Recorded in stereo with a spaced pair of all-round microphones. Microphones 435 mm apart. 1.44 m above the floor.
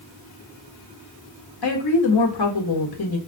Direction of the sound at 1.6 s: 60° left (ahead or behind).